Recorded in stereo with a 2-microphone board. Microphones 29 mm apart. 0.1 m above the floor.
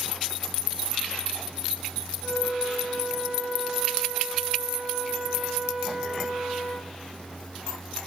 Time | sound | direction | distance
2.2 | a flute | centre (ahead or behind) | 10 m